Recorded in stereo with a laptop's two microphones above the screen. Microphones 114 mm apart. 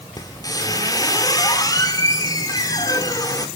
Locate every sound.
0.2 s a squeak: 35° left (ahead or behind), 1.1 m